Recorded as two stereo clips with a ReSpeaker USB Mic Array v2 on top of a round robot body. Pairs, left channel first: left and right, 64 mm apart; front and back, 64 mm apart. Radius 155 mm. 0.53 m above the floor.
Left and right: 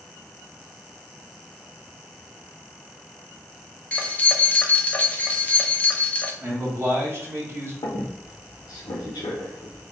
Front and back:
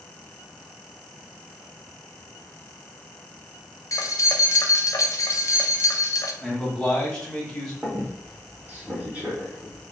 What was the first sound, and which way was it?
Keys jangling, 25° left.